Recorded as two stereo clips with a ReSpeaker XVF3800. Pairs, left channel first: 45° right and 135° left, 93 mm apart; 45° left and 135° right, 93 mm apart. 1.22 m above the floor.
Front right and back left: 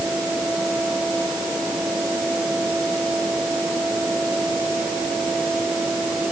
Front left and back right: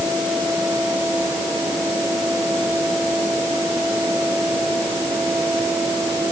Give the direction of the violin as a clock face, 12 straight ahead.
No violin in this recording.